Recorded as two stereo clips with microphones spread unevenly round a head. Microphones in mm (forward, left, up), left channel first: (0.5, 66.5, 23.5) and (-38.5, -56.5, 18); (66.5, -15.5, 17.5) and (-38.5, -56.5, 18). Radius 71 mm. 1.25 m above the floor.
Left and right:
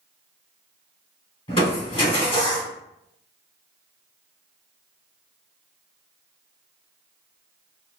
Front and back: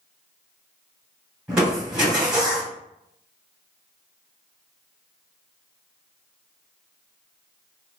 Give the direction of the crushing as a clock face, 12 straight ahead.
8 o'clock.